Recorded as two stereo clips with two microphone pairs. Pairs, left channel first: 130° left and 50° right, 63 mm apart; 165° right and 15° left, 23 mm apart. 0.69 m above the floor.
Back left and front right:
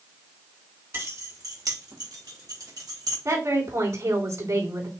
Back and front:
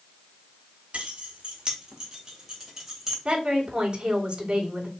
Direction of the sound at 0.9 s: 5° right.